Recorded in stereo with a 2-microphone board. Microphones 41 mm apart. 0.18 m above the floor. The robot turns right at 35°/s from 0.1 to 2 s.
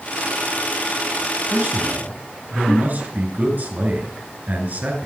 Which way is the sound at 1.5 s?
55° right (ahead or behind).